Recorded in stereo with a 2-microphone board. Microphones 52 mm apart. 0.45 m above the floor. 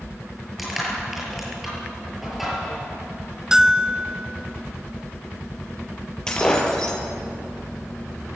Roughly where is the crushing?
Centre.